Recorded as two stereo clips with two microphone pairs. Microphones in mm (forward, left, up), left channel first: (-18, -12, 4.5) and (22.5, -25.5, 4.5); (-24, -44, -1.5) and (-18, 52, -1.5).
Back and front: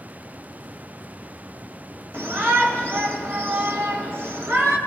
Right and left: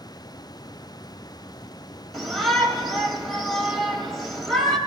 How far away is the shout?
About 2.5 m.